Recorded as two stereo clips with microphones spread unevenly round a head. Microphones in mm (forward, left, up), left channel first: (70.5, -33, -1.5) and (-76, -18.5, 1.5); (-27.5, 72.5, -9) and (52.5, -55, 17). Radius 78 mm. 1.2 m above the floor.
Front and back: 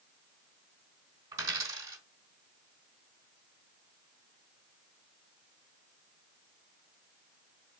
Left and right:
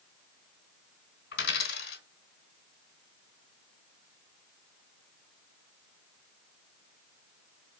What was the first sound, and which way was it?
A dropped coin, 105° left.